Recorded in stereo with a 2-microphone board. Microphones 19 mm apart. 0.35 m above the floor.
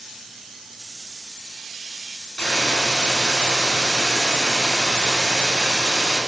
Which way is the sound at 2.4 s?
65° left (ahead or behind).